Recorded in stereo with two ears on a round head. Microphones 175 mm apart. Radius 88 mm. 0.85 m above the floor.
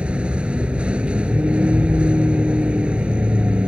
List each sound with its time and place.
0.0 s a vehicle: 5° right (ahead or behind)